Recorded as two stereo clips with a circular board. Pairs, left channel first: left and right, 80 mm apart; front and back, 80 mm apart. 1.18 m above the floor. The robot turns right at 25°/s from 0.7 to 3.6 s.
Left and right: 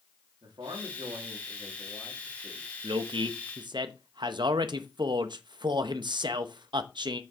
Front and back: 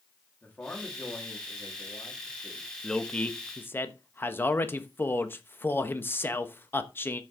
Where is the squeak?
No squeak in this recording.